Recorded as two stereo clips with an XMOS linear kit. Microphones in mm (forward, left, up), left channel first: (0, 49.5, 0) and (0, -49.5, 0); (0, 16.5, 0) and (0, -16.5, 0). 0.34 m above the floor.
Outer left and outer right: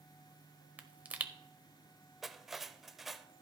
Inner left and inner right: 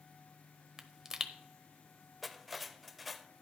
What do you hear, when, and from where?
0.8 s a pop: 15° right (ahead or behind), 0.8 m
2.2 s cutlery clinking: centre (ahead or behind), 0.6 m